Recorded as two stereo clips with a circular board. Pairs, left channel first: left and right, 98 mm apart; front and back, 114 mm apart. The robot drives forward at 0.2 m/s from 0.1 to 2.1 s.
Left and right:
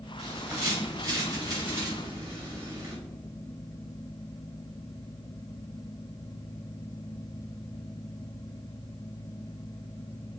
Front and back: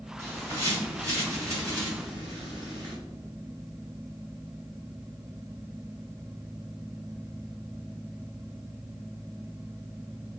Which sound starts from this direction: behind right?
A bird, at 0.2 s.